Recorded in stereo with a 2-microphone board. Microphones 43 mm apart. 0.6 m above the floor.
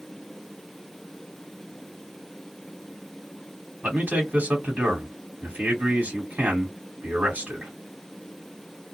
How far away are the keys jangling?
No keys jangling in this recording.